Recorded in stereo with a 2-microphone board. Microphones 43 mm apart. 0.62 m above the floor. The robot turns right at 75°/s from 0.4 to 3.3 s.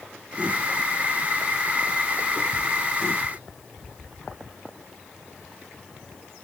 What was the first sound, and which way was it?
Only background noise.